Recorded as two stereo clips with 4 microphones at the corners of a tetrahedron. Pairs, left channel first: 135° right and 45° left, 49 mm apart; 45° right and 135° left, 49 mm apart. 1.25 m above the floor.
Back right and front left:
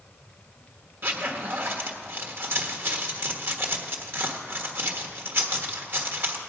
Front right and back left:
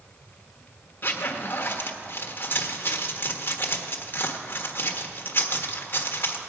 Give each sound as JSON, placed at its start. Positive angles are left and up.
{"t": 1.0, "sound": "a zipper", "azimuth_deg": 0, "distance_m": 1.4}